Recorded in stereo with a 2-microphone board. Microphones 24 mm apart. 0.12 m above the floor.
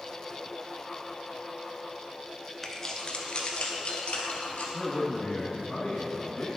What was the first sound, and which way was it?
Keys jangling, 10° left (ahead or behind).